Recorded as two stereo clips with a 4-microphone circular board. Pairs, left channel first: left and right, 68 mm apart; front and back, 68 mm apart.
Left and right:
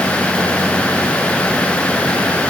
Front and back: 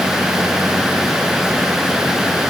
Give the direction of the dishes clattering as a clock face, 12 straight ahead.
I don't hear dishes clattering.